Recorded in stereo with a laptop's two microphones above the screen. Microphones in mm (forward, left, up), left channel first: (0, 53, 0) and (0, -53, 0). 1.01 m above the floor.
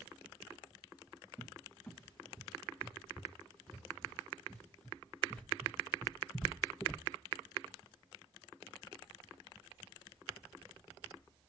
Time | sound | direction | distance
1.4 | a cupboard door | 10° left (ahead or behind) | 0.7 m